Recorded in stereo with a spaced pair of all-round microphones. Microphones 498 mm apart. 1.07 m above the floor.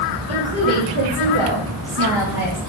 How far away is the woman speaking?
About 3.5 m.